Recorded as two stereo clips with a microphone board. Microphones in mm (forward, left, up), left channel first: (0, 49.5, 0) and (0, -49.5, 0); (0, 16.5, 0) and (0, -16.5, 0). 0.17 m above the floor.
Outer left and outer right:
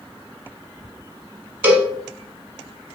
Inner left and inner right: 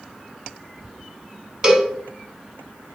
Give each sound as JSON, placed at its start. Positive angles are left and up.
{"t": 1.6, "sound": "a cowbell", "side_deg": -20, "distance_m": 0.8}